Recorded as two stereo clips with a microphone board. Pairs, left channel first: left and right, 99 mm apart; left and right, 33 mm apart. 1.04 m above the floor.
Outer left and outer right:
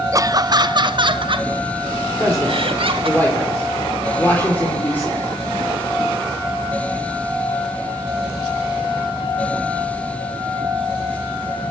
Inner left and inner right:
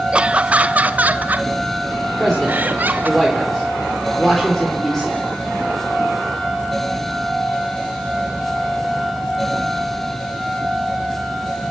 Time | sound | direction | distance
0.1 | laughter | 35° right (ahead or behind) | 0.8 m
2.1 | a man speaking | 20° left (ahead or behind) | 3 m